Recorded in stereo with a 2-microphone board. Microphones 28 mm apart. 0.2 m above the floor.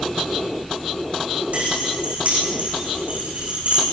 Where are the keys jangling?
50° right (ahead or behind), 8.5 m; by 3.8 s 55° right (ahead or behind), 11 m.